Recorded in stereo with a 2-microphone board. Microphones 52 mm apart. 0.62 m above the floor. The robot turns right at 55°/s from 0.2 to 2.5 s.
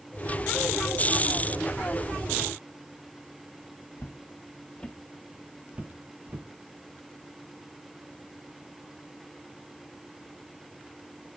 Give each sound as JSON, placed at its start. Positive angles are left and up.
{"t": 4.0, "sound": "footsteps", "side_deg": 55, "distance_m": 1.6}